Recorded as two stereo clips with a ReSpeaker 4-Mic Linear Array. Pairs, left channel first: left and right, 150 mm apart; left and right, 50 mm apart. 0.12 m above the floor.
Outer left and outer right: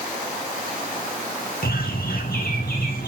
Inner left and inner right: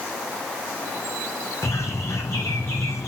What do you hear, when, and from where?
1.6 s a bird: 80° left, 1.9 m